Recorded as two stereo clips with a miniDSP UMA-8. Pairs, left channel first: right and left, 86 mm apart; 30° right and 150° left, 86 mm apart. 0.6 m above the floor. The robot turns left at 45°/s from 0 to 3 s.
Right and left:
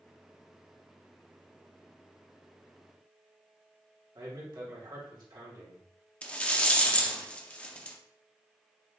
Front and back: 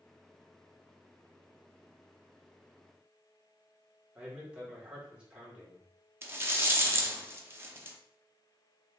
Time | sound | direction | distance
4.2 | a man speaking | 75° left | 1.6 m
6.2 | a rattle | 160° right | 0.5 m